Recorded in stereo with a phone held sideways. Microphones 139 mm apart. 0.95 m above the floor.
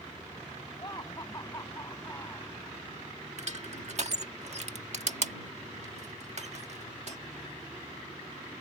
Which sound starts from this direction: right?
Crushing, at 3.4 s.